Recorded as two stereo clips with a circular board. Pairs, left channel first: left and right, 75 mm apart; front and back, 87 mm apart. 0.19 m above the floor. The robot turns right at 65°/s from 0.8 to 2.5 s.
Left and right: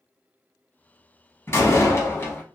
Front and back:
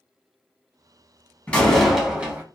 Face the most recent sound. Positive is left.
turn(degrees=130)